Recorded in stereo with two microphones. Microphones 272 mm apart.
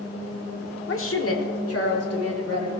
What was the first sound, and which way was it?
A woman speaking, 45° left (ahead or behind).